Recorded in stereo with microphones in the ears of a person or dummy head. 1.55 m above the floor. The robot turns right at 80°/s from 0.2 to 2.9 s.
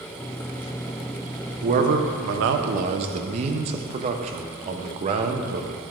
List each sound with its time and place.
1.6 s a man speaking: 145° right, 0.7 m; by 5.7 s 40° right, 0.7 m